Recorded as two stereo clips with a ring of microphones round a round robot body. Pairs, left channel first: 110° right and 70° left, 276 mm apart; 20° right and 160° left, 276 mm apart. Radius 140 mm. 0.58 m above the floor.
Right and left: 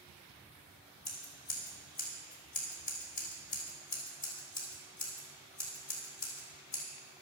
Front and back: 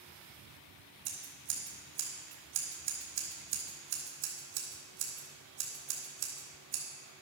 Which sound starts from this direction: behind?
Scissors, at 1.1 s.